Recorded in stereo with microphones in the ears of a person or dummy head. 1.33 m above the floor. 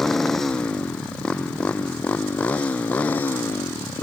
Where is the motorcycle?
5° left (ahead or behind); by 4.0 s 10° left (ahead or behind).